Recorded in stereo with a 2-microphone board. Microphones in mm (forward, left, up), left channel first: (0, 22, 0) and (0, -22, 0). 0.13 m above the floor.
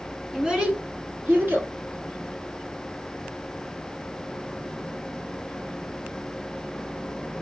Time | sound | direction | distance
0.3 | a child speaking | 10° right (ahead or behind) | 0.9 m